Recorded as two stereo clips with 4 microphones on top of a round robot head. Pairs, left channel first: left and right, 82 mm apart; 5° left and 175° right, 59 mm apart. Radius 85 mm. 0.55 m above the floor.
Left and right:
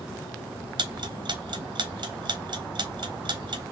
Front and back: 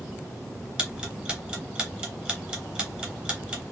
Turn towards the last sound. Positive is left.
turn(degrees=-100)